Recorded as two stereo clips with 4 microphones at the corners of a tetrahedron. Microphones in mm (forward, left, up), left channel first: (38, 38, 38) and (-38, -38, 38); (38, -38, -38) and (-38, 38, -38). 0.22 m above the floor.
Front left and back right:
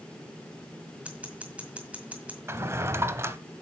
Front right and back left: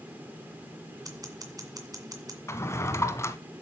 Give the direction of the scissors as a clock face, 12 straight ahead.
7 o'clock.